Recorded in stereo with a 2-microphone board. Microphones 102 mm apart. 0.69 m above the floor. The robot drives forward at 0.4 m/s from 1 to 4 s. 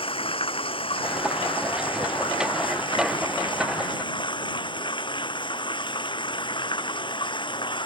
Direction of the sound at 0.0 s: 60° left (ahead or behind).